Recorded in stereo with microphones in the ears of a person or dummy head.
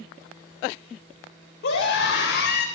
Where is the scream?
65° left (ahead or behind), 3.5 m; by 2.6 s 60° left (ahead or behind), 4 m.